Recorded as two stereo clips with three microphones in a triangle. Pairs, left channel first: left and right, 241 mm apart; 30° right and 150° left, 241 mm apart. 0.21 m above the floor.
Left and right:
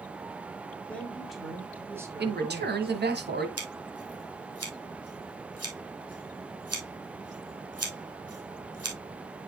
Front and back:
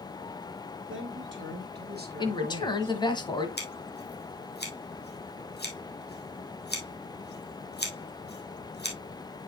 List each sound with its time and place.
0.9 s a man speaking: 175° left, 2 m; by 3.0 s 150° right, 2 m
2.2 s a man speaking: 95° right, 1.3 m
3.6 s scissors: 75° right, 2 m